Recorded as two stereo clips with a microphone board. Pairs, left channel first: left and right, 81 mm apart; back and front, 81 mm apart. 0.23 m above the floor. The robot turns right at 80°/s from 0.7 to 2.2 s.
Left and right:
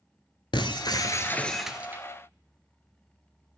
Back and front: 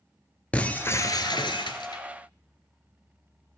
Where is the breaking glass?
105° left, 1.0 m; by 2.0 s 145° right, 1.0 m.